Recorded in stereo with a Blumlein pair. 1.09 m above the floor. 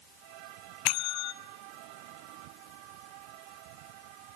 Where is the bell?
40° left, 0.9 m.